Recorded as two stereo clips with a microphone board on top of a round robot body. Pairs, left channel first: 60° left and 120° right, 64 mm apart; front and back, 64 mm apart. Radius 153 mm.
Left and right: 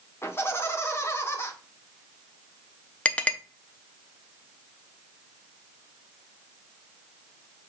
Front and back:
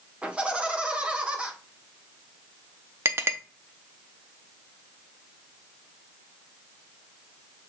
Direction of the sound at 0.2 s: 110° left.